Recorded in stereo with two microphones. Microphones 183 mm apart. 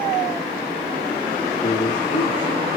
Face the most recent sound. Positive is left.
turn(degrees=75)  # may be behind; listen again after turning